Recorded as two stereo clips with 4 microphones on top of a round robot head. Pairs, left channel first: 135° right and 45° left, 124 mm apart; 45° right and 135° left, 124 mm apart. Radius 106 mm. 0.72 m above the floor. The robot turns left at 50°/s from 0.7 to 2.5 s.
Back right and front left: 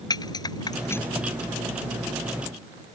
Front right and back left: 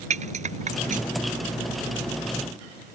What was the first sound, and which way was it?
A rattle, 165° left.